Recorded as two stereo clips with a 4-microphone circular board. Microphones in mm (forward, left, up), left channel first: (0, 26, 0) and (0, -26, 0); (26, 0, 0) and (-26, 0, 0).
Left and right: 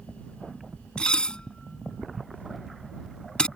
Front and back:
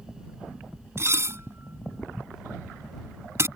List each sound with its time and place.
1.0 s dishes clattering: 160° left